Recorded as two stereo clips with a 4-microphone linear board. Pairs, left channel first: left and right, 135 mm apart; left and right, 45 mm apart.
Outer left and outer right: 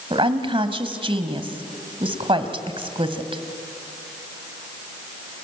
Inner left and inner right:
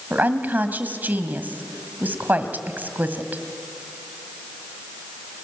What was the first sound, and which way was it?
A woman speaking, 45° right (ahead or behind).